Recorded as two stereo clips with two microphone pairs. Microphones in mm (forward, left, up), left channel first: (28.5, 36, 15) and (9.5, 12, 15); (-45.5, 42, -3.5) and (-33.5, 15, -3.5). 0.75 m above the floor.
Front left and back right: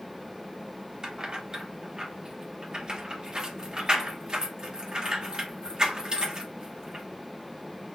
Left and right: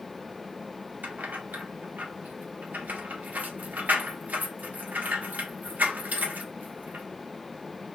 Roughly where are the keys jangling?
Ahead right.